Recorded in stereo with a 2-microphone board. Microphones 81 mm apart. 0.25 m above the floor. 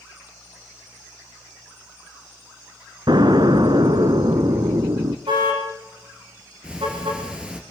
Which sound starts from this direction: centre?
Ticking, at 6.6 s.